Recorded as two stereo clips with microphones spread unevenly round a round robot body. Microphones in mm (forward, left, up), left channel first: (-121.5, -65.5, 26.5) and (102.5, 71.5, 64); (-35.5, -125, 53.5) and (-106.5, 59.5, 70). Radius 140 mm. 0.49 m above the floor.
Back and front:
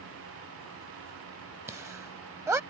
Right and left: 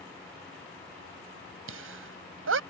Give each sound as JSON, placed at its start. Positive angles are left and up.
{"t": 1.7, "sound": "laughter", "azimuth_deg": 115}